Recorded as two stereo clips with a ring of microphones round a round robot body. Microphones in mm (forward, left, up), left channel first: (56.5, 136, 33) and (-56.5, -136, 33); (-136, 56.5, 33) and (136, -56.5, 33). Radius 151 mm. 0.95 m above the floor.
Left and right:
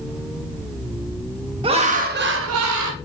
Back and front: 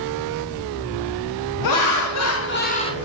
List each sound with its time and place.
1.6 s laughter: 175° left, 1.0 m; by 3.0 s 125° right, 0.7 m